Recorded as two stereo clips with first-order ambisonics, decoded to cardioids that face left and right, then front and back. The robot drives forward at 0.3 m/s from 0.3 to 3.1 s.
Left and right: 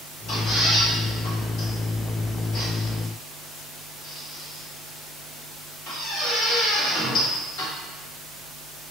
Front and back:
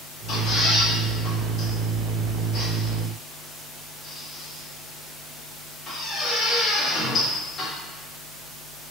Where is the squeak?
50° left, 2.0 m; by 7.7 s 70° left, 1.6 m.